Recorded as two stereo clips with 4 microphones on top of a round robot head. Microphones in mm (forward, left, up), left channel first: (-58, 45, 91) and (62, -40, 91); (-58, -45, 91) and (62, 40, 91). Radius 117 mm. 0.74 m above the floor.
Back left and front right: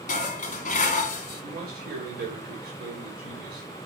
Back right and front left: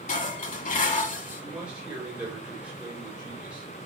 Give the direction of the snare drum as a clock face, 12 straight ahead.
I don't hear a snare drum.